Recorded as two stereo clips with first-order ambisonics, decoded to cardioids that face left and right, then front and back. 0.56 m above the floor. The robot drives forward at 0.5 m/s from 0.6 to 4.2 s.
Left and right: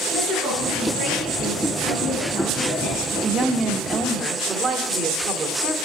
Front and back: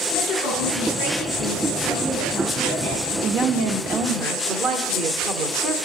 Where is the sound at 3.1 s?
150° right, 0.8 m; by 5.8 s 165° right, 1.1 m.